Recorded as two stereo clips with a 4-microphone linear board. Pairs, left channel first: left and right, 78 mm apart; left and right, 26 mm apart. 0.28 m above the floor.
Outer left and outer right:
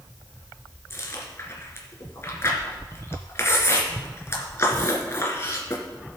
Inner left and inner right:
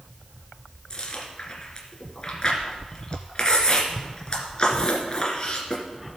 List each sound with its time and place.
0.9 s chewing: 35° left (ahead or behind), 2 m